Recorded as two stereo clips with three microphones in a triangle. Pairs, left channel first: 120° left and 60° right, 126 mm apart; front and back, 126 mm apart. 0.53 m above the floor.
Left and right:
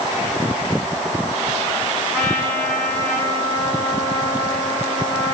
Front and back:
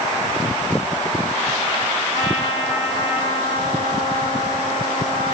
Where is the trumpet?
50° left, 4 m.